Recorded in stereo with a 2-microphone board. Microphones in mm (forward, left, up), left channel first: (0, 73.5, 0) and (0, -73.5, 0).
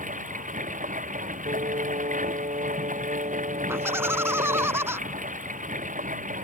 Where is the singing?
60° right (ahead or behind).